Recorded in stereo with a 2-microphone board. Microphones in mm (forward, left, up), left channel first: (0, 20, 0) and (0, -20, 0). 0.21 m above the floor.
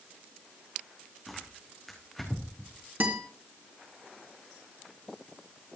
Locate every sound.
1.3 s tearing paper: 5° left (ahead or behind), 4 m
3.0 s a guitar: 50° right (ahead or behind), 3 m